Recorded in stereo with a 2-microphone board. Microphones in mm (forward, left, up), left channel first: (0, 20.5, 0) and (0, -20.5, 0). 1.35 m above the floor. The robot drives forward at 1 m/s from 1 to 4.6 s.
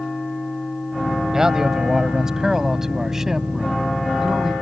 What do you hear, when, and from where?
1.3 s a man speaking: 15° right (ahead or behind); by 4.5 s 10° right (ahead or behind)